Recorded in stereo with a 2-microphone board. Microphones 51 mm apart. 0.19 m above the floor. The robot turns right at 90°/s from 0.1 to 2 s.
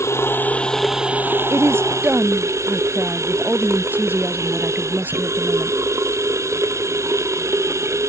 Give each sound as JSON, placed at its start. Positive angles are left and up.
{"t": 0.0, "sound": "running water", "azimuth_deg": 115}
{"t": 1.5, "sound": "a woman speaking", "azimuth_deg": -80}